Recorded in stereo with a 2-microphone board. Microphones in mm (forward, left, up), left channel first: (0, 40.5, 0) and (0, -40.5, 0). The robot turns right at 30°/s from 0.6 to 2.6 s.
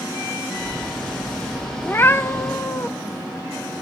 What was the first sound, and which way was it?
A cat meowing, 25° left (ahead or behind).